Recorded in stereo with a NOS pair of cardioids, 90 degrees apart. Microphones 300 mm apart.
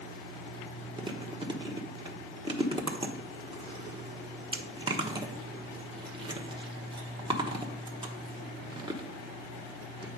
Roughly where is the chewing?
Ahead.